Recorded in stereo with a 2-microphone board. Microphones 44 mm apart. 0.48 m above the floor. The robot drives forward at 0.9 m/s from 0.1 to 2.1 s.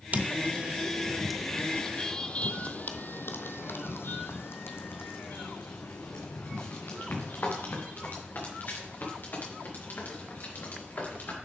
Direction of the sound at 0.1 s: 35° right (ahead or behind).